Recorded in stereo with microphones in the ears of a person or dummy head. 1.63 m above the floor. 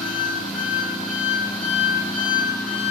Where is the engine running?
5° left (ahead or behind), 1.0 m.